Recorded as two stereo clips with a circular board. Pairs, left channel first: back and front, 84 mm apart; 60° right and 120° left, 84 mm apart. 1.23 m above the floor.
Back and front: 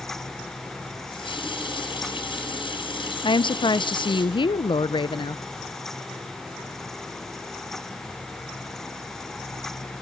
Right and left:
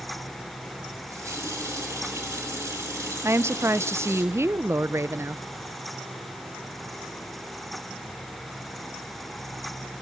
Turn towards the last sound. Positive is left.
turn(degrees=175)